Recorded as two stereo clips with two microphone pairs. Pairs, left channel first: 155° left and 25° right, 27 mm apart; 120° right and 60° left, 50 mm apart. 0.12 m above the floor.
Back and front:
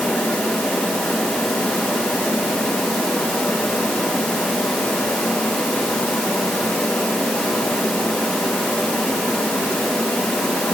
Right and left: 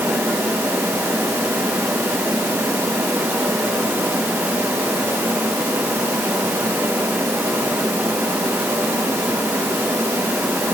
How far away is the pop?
I don't hear a pop.